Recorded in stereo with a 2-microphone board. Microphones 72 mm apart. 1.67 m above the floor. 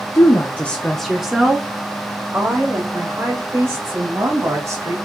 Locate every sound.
0.1 s a woman speaking: 45° left (ahead or behind), 0.6 m; by 5.0 s 50° right (ahead or behind), 2.5 m